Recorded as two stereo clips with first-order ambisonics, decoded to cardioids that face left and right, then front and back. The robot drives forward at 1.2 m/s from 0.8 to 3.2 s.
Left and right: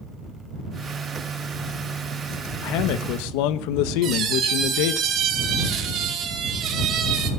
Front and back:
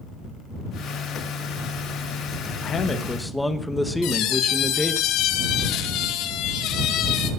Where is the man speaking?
60° left, 1.6 m; by 5.0 s 85° left, 1.4 m.